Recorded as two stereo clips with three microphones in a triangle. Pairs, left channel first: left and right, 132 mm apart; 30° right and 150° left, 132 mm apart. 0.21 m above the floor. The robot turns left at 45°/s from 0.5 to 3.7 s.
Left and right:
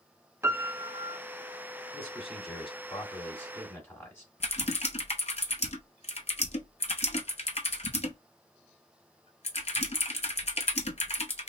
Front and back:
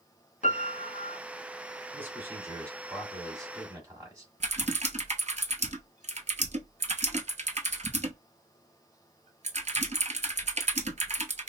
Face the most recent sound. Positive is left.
turn(degrees=120)